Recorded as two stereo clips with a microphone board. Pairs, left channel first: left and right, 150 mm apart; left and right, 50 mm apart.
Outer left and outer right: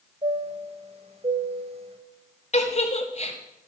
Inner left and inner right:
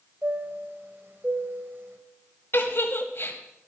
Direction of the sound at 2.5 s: 50° left (ahead or behind).